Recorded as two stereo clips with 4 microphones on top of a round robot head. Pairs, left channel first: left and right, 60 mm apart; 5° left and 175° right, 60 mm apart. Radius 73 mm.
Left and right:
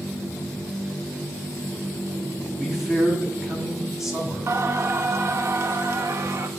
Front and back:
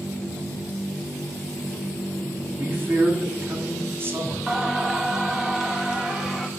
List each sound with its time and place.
2.6 s a man speaking: 170° right, 1.7 m
4.5 s singing: 100° right, 0.7 m